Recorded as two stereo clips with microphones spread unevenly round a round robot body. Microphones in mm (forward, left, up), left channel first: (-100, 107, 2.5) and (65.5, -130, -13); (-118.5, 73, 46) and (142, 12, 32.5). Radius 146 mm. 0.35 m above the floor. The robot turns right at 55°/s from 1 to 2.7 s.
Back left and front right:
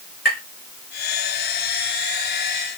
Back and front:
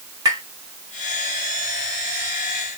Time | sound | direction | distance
0.2 | tapping | 65° left | 2.0 m